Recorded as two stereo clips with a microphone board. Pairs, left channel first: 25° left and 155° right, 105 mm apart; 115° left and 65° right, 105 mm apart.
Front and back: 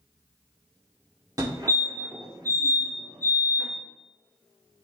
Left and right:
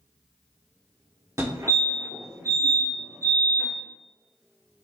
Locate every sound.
1.4 s a fire alarm: 115° right, 2.5 m